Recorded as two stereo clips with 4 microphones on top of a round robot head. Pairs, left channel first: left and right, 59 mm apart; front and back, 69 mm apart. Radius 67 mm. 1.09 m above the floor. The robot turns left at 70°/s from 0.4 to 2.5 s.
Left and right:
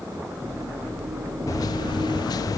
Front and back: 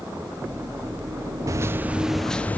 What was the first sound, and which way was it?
A microwave, 140° left.